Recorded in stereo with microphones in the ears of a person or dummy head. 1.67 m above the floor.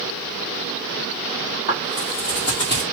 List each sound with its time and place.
1.7 s footsteps: 45° left (ahead or behind), 2 m; by 2.8 s 30° left (ahead or behind), 1.9 m